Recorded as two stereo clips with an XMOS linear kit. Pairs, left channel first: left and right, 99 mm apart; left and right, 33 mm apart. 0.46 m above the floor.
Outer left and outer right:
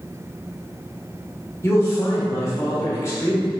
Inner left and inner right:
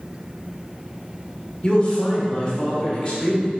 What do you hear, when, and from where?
1.6 s a man speaking: 30° left (ahead or behind), 1.5 m